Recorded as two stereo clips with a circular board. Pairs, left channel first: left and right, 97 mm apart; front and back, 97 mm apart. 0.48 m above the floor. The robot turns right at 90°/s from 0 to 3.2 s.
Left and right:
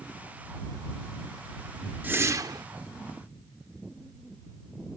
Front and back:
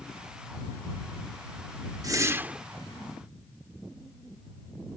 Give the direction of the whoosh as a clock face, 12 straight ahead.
5 o'clock.